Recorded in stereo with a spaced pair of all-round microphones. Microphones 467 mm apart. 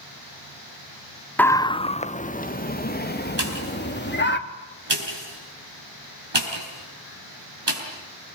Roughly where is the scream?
Centre.